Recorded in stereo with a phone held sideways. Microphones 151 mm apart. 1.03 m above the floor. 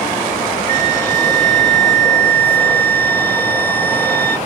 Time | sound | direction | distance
0.7 | a flute | 65° right (ahead or behind) | 1.9 m